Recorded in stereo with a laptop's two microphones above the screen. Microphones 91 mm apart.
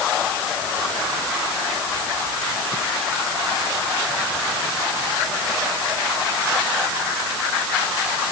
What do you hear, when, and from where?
Only background noise.